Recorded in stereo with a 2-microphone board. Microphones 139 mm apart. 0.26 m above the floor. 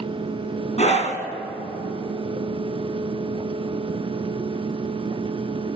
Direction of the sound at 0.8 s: 55° left (ahead or behind).